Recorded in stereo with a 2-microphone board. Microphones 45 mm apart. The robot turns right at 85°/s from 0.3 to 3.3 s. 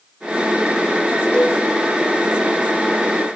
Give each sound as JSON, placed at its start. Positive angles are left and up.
{"t": 1.3, "sound": "a cowbell", "side_deg": 25, "distance_m": 5.5}